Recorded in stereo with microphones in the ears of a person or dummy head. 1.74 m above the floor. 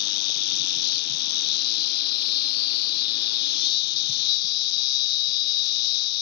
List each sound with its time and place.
0.0 s an insect: 50° left (ahead or behind)